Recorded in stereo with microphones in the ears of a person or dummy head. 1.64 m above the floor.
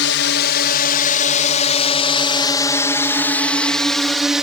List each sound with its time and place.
0.0 s a drone: 50° left (ahead or behind); by 4.4 s 10° right (ahead or behind)